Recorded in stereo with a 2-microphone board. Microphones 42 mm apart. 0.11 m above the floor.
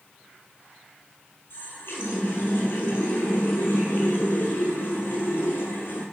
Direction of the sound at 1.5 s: 65° left (ahead or behind).